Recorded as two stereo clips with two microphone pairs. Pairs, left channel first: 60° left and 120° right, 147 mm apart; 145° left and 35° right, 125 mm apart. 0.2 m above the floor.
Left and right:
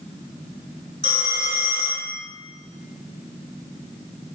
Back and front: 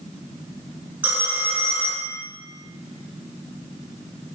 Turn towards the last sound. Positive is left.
turn(degrees=-110)